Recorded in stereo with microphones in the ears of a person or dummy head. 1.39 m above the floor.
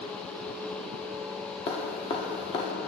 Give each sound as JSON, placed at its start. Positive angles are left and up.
{"t": 1.7, "sound": "dripping", "side_deg": 35, "distance_m": 1.4}